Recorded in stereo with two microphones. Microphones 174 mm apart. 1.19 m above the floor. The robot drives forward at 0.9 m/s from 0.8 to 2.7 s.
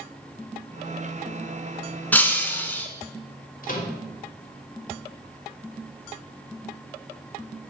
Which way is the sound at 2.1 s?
10° left (ahead or behind).